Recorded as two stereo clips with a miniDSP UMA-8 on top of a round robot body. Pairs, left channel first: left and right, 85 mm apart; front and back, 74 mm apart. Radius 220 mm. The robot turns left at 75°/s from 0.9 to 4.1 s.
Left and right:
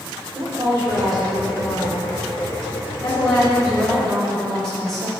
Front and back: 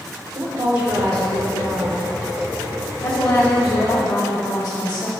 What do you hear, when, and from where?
0.3 s a woman speaking: 155° right, 1.7 m; by 5.1 s 35° right, 1.7 m